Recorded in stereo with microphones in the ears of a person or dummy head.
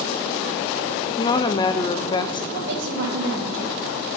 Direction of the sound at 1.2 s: 25° left (ahead or behind).